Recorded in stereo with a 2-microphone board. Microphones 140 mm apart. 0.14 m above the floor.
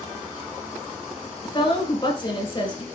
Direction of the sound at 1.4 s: 40° left (ahead or behind).